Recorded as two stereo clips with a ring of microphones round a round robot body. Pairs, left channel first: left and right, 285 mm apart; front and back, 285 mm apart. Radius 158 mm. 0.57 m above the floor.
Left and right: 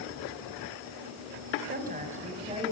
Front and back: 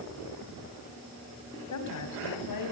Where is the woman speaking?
30° right, 4.5 m; by 2.7 s 15° right, 5 m.